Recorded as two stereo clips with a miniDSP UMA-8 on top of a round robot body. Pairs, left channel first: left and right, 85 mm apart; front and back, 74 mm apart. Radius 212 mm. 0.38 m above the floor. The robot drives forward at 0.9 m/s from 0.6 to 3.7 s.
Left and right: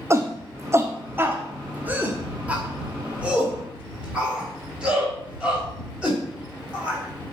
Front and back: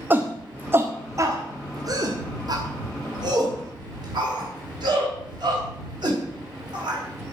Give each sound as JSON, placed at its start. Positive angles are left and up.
{"t": 0.1, "sound": "a shout", "azimuth_deg": -130, "distance_m": 1.4}